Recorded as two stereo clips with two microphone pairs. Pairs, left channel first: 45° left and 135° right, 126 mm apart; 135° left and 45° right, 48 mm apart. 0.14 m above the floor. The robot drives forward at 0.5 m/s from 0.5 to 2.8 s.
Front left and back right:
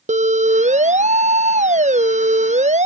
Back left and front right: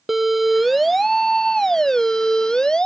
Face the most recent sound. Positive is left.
turn(degrees=-150)